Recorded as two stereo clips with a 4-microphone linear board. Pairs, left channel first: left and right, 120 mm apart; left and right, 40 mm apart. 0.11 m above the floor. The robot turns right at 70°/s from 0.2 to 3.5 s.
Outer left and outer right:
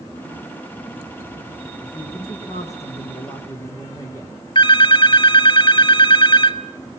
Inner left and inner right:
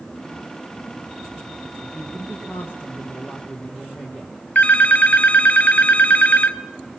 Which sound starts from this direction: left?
A phone ringing, at 4.5 s.